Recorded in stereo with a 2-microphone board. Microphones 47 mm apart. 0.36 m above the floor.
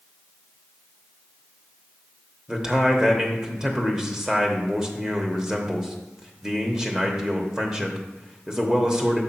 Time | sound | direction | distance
2.5 | a man speaking | 15° right (ahead or behind) | 1.0 m